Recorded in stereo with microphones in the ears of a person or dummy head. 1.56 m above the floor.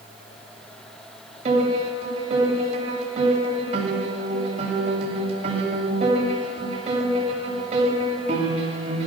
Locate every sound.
1.4 s a piano: 40° right (ahead or behind), 8 m